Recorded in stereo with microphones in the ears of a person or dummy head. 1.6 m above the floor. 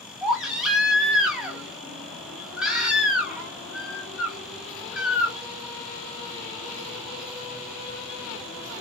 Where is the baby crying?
5° right (ahead or behind), 0.7 m.